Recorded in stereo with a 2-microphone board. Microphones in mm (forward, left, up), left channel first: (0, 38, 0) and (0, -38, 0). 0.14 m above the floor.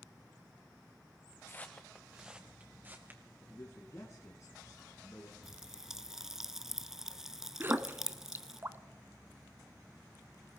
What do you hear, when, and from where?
1.5 s footsteps: 30° left (ahead or behind), 0.9 m; by 3.2 s 30° right (ahead or behind), 2.5 m
3.4 s a man speaking: 40° left (ahead or behind), 1.7 m
5.4 s a pop: 5° right (ahead or behind), 0.6 m
7.6 s a splash: 30° right (ahead or behind), 0.6 m